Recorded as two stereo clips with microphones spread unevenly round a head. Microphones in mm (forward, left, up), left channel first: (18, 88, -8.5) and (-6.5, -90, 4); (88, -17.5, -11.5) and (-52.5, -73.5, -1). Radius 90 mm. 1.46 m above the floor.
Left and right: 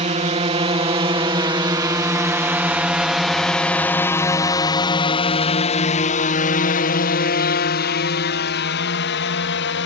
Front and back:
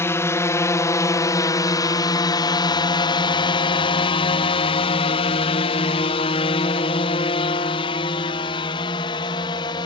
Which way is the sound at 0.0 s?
45° right.